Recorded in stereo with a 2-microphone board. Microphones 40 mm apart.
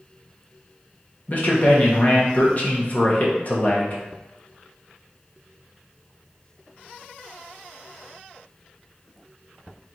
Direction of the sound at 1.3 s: 40° left (ahead or behind).